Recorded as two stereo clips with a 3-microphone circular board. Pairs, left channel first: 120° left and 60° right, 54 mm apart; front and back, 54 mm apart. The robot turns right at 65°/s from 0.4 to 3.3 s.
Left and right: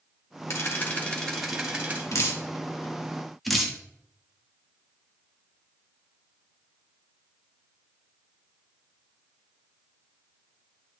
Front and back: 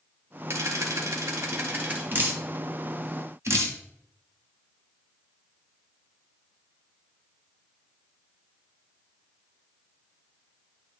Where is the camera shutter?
150° left, 1.6 m; by 2.0 s 115° right, 1.6 m.